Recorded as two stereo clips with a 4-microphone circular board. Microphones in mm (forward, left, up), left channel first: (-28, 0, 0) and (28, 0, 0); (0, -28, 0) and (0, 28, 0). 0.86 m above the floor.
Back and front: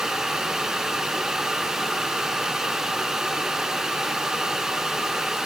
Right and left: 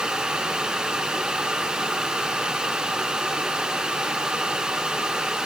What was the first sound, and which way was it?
Only background noise.